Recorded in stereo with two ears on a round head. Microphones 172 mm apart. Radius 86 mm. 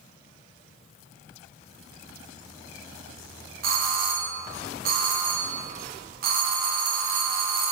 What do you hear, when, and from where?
3.6 s a doorbell: 50° right (ahead or behind), 0.9 m